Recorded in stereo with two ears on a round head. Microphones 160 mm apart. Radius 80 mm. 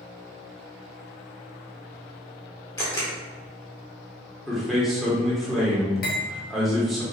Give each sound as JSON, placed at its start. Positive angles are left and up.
{"t": 2.8, "sound": "a camera shutter", "side_deg": 20, "distance_m": 1.2}
{"t": 4.5, "sound": "a man speaking", "side_deg": 0, "distance_m": 1.1}
{"t": 6.0, "sound": "cutlery clinking", "side_deg": 55, "distance_m": 1.0}